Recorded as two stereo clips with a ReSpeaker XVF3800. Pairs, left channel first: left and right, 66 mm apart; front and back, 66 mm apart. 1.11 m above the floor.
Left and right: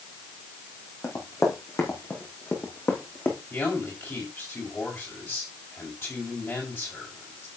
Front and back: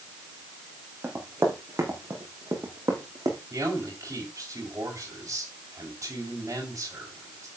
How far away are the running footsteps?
About 4.5 m.